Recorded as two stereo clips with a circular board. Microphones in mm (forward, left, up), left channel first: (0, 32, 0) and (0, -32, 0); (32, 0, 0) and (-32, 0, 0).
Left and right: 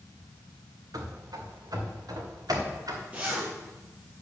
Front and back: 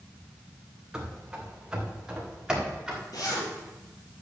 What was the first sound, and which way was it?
Running footsteps, 100° right.